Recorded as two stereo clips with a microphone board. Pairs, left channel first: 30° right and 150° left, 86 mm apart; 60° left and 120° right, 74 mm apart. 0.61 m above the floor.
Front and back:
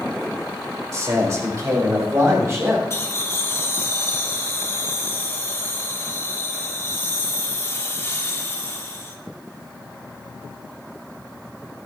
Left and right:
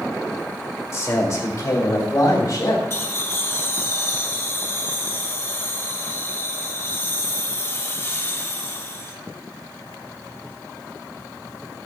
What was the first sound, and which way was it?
A man speaking, 100° left.